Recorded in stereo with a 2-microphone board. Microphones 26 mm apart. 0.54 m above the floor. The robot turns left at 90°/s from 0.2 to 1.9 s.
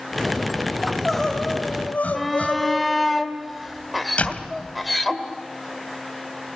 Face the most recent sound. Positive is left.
turn(degrees=55)  # may be behind; listen again after turning